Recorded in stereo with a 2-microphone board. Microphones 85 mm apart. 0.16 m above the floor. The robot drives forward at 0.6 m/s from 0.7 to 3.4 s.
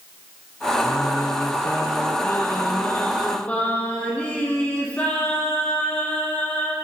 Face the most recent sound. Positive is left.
turn(degrees=15)  # may be behind; listen again after turning